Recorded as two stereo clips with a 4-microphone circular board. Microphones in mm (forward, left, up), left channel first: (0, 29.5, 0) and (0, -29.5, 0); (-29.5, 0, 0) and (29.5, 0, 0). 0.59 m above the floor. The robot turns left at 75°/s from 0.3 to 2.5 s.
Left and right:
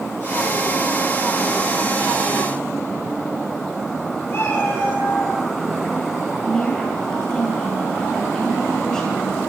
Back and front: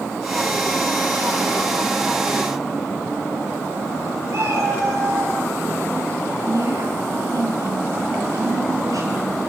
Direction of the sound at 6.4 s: 10° left.